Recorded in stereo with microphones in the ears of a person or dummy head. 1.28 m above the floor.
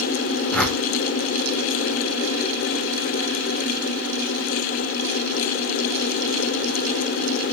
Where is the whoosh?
5° left (ahead or behind), 2.0 m.